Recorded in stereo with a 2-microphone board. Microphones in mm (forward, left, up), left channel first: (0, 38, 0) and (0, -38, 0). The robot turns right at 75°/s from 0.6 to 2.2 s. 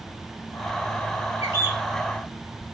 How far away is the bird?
About 1.2 m.